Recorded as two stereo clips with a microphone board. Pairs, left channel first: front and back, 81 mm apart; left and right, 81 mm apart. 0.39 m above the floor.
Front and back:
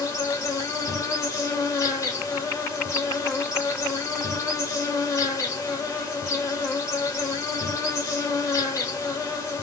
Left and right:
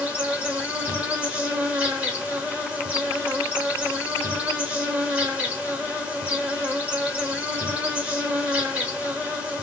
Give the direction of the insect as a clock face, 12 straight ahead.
1 o'clock.